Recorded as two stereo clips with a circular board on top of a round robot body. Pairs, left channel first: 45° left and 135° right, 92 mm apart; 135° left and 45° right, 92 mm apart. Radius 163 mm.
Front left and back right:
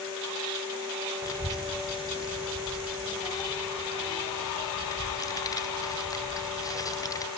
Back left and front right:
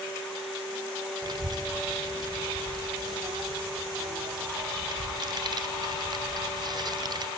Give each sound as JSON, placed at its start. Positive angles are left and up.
{"t": 1.2, "sound": "a child speaking", "azimuth_deg": -5, "distance_m": 2.5}